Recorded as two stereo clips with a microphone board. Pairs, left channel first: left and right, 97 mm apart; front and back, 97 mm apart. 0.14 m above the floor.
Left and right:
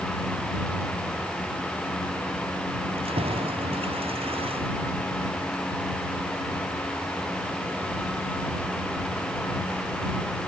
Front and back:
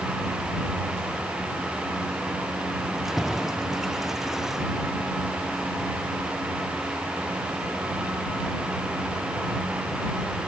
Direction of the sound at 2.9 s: 95° right.